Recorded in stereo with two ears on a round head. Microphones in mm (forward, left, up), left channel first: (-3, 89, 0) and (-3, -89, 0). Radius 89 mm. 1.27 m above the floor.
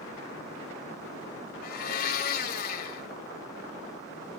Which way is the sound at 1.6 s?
45° left (ahead or behind).